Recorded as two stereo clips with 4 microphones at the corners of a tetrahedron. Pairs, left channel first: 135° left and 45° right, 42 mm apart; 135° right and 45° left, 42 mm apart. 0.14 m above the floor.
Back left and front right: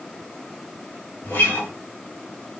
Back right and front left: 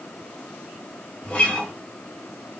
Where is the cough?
No cough in this recording.